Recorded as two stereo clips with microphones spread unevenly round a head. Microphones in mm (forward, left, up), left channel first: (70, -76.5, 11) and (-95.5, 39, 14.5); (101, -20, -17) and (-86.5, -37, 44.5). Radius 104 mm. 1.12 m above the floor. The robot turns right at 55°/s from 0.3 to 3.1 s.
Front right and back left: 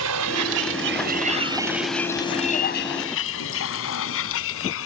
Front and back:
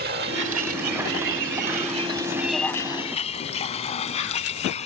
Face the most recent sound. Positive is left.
turn(degrees=-55)